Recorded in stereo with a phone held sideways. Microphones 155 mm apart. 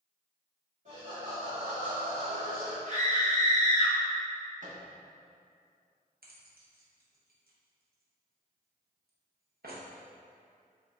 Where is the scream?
50° right (ahead or behind), 1.1 m.